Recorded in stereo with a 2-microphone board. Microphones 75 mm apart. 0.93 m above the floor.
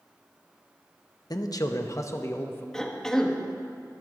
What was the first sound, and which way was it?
A man speaking, 60° left (ahead or behind).